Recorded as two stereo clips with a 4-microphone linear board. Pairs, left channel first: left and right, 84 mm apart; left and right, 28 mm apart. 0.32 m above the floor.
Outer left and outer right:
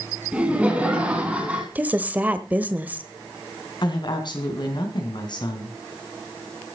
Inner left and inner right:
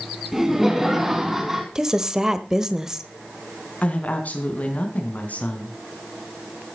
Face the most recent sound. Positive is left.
turn(degrees=65)  # may be behind; listen again after turning